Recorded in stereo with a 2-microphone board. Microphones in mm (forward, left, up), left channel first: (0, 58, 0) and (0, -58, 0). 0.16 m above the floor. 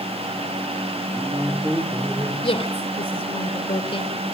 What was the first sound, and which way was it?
A man speaking, 30° right (ahead or behind).